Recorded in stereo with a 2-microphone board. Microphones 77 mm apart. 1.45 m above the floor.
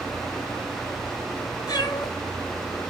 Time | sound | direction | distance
1.7 | a cat meowing | 60° left (ahead or behind) | 8 m